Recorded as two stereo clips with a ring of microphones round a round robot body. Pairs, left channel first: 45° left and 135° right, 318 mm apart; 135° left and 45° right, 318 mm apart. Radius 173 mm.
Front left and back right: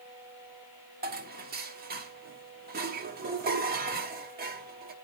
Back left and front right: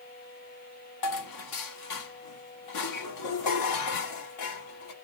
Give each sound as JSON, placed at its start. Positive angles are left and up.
{"t": 1.0, "sound": "dishes clattering", "azimuth_deg": 160, "distance_m": 1.4}